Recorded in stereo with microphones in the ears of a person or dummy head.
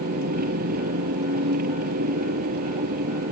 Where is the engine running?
55° right (ahead or behind).